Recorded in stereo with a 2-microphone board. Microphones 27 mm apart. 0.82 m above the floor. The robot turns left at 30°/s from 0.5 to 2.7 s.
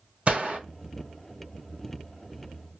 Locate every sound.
0.3 s a gunshot: 50° right (ahead or behind), 1.4 m; by 0.6 s 45° right (ahead or behind), 1.4 m